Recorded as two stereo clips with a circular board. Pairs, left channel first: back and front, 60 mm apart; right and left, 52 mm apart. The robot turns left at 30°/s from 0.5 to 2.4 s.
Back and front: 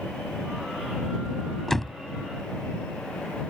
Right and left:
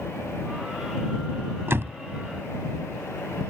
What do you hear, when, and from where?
1.7 s a door slam: 95° left; by 2.0 s 85° left